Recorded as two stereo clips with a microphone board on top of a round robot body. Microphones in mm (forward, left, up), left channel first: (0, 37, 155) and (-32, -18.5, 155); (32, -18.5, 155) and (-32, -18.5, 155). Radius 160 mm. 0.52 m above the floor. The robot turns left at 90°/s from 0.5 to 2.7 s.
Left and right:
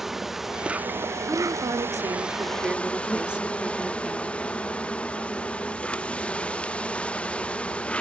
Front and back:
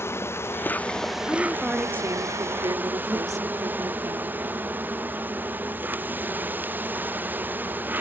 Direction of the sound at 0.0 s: 35° right.